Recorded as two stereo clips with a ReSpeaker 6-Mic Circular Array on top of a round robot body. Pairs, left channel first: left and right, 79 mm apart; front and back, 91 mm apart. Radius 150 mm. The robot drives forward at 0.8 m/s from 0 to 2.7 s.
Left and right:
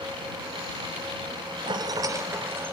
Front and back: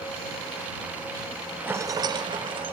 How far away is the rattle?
About 0.5 m.